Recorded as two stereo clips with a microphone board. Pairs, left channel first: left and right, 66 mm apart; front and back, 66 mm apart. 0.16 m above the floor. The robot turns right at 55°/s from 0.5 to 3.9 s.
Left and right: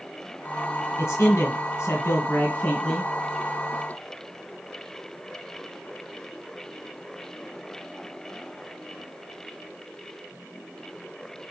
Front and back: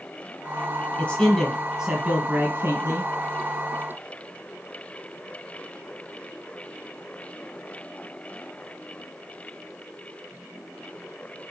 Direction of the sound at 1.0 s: 60° left.